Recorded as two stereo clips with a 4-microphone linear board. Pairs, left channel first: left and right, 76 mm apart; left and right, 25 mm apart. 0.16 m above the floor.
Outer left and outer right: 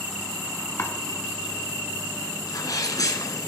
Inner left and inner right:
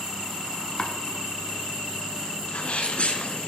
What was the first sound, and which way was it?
Chopping, 35° left (ahead or behind).